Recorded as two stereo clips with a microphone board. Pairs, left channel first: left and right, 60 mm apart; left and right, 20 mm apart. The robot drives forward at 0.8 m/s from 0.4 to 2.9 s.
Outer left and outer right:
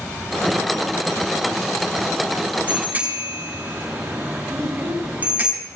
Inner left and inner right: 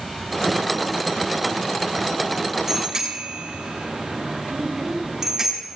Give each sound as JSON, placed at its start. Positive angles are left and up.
{"t": 2.7, "sound": "a bicycle bell", "side_deg": -25, "distance_m": 7.0}
{"t": 4.5, "sound": "a child speaking", "side_deg": -5, "distance_m": 6.5}